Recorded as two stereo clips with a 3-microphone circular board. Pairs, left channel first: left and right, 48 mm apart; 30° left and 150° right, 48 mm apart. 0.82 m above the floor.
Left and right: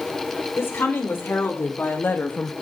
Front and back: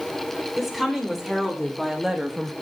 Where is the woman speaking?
115° left, 3.5 m; by 2.5 s 150° left, 0.7 m.